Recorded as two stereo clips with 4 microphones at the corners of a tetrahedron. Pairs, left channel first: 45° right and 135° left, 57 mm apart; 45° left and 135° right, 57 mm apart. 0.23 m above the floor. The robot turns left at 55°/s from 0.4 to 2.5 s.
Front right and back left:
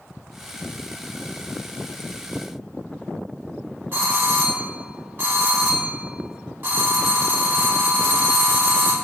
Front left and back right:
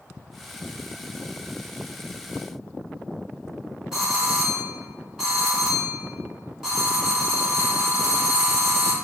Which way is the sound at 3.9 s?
145° left.